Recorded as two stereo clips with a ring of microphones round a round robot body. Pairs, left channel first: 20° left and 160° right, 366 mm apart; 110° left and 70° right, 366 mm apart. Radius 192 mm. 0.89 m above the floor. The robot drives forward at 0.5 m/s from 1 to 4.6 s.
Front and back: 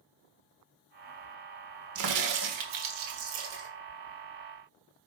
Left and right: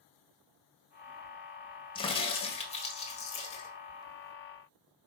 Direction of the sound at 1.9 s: 175° right.